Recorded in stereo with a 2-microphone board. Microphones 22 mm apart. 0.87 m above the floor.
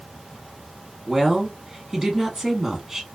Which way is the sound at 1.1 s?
10° right (ahead or behind).